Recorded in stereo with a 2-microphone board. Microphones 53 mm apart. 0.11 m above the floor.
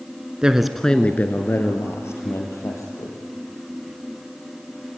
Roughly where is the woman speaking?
Centre.